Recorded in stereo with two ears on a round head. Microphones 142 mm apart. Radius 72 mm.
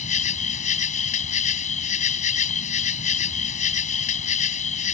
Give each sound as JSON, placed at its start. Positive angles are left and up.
{"t": 0.0, "sound": "an insect", "side_deg": 45}